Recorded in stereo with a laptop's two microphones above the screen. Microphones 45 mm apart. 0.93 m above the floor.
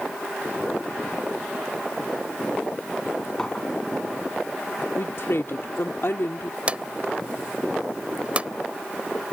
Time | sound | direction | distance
3.4 | a clink | 15° left (ahead or behind) | ?
5.0 | a woman speaking | 65° left (ahead or behind) | ?
6.7 | a drawer | 25° right (ahead or behind) | ?